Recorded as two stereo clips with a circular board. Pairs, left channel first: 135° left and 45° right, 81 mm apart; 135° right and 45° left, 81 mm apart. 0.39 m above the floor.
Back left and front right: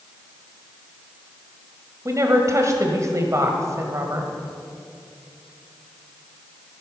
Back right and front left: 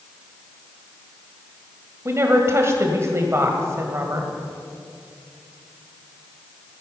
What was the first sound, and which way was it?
A woman speaking, straight ahead.